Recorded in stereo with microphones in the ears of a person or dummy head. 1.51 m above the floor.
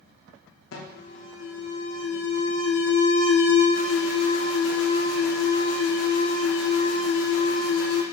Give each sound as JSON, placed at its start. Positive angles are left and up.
{"t": 0.7, "sound": "an alarm", "side_deg": 75, "distance_m": 1.2}